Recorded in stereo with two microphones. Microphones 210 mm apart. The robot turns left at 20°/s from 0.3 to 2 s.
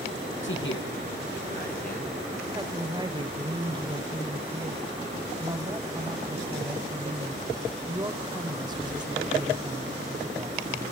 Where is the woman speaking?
20° right (ahead or behind), 1.7 m.